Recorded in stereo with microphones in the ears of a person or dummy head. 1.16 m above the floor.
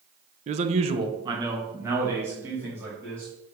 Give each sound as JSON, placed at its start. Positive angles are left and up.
{"t": 0.5, "sound": "a man speaking", "side_deg": -30, "distance_m": 0.6}